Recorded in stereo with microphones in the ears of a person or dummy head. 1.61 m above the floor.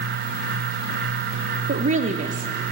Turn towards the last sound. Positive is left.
turn(degrees=-30)  # may be behind; listen again after turning